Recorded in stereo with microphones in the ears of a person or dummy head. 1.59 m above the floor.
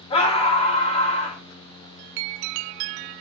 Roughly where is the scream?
Left.